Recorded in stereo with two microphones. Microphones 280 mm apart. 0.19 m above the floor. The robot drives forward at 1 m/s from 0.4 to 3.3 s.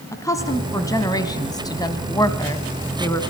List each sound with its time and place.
0.1 s a woman speaking: 10° left (ahead or behind), 2.0 m